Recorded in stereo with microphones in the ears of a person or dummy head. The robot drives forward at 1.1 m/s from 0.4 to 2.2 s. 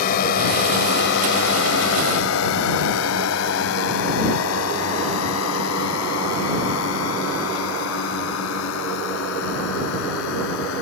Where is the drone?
50° left (ahead or behind); by 10.8 s 75° left (ahead or behind).